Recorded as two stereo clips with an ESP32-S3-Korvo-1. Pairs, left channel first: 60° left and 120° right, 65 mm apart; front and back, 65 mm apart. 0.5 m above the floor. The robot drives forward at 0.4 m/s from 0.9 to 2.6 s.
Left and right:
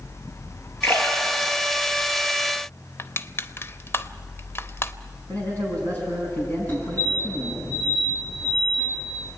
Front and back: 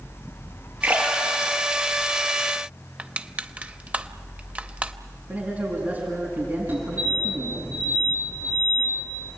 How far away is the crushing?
About 0.7 m.